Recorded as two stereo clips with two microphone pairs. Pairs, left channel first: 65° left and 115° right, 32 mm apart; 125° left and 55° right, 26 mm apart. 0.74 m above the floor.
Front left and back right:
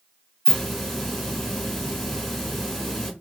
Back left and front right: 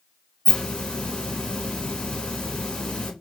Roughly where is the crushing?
No crushing in this recording.